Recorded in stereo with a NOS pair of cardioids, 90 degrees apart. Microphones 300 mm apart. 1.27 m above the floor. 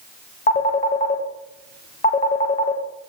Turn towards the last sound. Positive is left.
turn(degrees=25)